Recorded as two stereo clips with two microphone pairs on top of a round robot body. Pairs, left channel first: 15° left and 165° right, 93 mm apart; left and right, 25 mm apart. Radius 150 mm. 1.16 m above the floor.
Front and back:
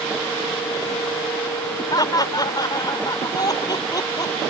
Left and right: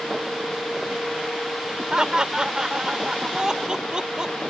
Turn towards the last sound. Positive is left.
turn(degrees=-35)